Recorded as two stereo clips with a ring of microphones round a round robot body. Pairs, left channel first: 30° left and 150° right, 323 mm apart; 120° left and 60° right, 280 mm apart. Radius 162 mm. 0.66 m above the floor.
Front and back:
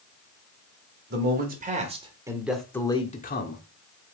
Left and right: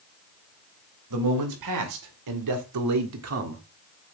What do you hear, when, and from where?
1.1 s a man speaking: 90° right, 2.5 m; by 3.6 s 20° right, 1.5 m